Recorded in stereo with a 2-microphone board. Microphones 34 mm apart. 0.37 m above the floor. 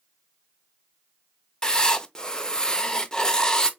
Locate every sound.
1.6 s writing: 20° left (ahead or behind), 0.6 m